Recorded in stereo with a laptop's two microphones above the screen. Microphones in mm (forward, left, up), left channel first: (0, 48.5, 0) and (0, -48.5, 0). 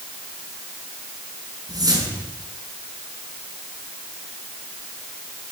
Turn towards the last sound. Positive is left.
turn(degrees=-45)  # may be behind; listen again after turning